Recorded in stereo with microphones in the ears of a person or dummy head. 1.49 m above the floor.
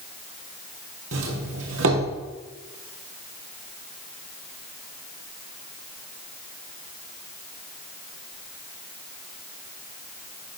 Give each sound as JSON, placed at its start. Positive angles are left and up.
{"t": 1.1, "sound": "a doorbell", "side_deg": -65, "distance_m": 2.0}